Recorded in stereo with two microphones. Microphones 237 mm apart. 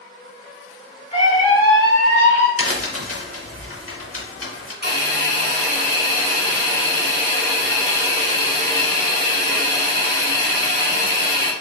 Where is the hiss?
40° left (ahead or behind), 0.9 m.